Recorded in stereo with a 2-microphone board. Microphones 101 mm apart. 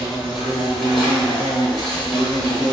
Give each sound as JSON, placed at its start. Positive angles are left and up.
{"t": 0.0, "sound": "an insect", "side_deg": 0, "distance_m": 1.1}